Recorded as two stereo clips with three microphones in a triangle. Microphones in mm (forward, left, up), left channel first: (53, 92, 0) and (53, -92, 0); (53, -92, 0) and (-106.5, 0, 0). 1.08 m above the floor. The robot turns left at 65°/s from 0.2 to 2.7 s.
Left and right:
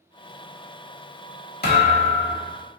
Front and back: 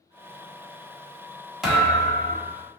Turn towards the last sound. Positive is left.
turn(degrees=-5)